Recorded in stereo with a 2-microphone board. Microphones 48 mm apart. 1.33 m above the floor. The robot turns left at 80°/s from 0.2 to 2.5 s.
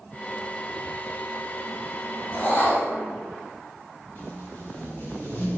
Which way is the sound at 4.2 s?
50° left (ahead or behind).